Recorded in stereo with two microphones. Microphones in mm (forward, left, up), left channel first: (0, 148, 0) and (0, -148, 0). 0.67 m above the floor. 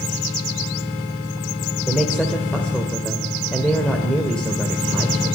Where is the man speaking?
5° left (ahead or behind), 2.5 m.